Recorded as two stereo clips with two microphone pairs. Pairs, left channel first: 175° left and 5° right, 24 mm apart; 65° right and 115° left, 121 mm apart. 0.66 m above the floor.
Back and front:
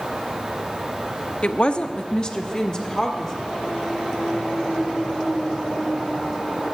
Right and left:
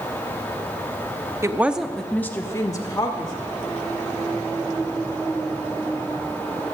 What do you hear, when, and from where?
1.4 s a woman speaking: 170° left, 0.7 m; by 3.4 s 120° right, 1.6 m